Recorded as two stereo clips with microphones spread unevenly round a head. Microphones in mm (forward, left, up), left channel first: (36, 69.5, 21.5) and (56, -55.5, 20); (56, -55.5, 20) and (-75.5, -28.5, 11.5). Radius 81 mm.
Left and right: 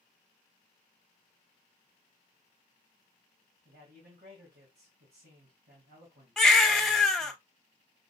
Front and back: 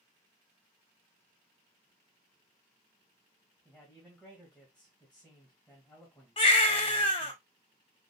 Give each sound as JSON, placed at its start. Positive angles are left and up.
{"t": 3.6, "sound": "a man speaking", "azimuth_deg": -95, "distance_m": 1.9}
{"t": 6.4, "sound": "a baby crying", "azimuth_deg": 10, "distance_m": 0.8}